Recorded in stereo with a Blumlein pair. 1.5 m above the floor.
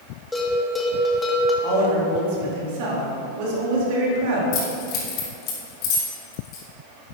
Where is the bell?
10° left, 2.0 m.